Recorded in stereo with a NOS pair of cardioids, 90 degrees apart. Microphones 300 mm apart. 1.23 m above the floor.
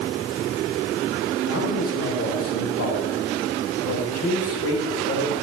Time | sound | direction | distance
1.5 | a man speaking | 50° left | 4.5 m